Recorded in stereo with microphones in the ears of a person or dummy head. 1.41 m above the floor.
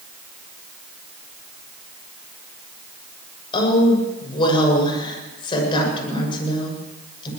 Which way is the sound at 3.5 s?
30° left (ahead or behind).